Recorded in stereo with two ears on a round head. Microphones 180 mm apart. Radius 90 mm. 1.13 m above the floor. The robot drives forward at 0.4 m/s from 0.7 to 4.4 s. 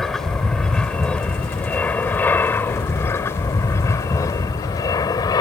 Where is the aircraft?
Centre (ahead or behind); by 5.4 s 20° left (ahead or behind).